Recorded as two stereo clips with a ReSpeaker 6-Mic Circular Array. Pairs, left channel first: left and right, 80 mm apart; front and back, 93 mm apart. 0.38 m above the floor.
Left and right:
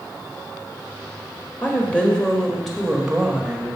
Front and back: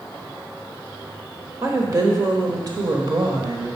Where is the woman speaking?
145° left, 1.2 m; by 3.8 s 160° right, 1.6 m.